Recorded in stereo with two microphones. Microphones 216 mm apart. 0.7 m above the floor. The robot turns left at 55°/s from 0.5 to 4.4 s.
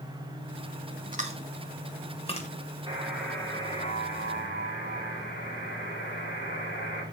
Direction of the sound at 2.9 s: 160° right.